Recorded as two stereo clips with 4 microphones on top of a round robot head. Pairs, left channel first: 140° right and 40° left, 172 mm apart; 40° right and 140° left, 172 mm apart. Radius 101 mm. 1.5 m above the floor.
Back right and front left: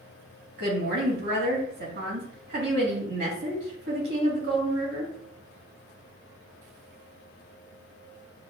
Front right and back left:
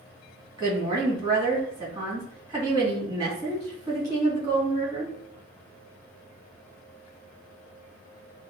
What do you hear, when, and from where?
0.6 s a woman speaking: 70° left, 1.9 m